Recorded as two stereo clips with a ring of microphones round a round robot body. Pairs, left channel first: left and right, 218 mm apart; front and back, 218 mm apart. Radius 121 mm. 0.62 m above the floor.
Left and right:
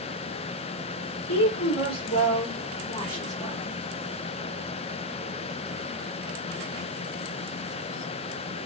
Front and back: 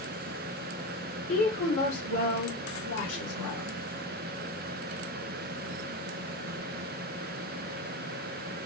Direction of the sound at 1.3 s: 55° left.